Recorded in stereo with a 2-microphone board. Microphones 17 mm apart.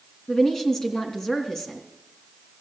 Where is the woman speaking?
35° left (ahead or behind), 2.5 m.